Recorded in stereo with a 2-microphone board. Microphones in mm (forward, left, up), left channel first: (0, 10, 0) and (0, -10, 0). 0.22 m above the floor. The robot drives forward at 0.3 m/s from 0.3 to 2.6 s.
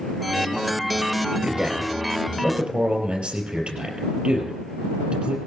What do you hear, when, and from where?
1.4 s a man speaking: 70° right (ahead or behind), 5 m; by 5.4 s 75° right (ahead or behind), 5 m